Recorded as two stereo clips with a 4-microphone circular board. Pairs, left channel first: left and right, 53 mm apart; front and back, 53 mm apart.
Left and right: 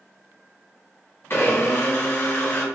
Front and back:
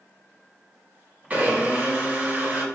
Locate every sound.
1.3 s a blender: 120° left, 3.5 m